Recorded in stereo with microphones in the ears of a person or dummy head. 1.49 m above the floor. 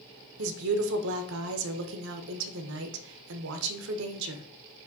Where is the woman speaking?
70° right (ahead or behind), 0.7 m.